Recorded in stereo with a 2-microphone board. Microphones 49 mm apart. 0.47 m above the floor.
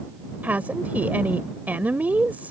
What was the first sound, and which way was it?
A woman speaking, 35° right (ahead or behind).